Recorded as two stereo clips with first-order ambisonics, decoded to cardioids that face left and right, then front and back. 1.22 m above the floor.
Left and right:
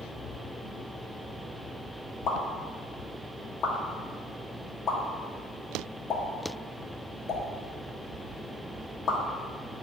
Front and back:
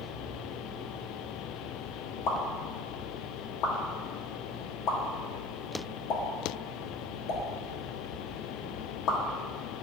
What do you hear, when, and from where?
2.3 s a pop: 35° left, 1.2 m